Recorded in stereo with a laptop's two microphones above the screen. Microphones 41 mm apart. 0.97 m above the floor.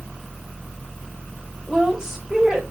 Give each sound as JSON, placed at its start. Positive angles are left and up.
{"t": 1.7, "sound": "a woman speaking", "side_deg": -10, "distance_m": 4.5}